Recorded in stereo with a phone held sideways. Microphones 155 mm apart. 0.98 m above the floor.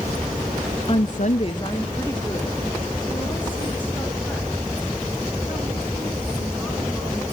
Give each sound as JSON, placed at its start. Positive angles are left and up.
{"t": 0.9, "sound": "a woman speaking", "side_deg": 35, "distance_m": 0.6}